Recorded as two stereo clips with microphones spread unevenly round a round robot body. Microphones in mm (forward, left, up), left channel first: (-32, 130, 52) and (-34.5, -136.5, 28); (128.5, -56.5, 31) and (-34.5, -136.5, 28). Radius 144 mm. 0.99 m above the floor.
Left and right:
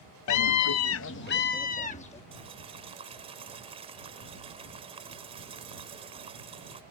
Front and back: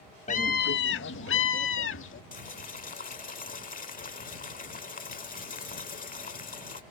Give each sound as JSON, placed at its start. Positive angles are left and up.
{"t": 0.3, "sound": "a scream", "azimuth_deg": 85}
{"t": 2.3, "sound": "boiling", "azimuth_deg": -15}